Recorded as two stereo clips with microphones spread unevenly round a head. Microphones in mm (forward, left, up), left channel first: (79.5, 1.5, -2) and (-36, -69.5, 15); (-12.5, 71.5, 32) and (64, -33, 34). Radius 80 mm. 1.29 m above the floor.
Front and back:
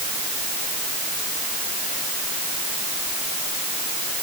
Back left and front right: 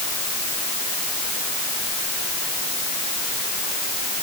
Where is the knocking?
I don't hear knocking.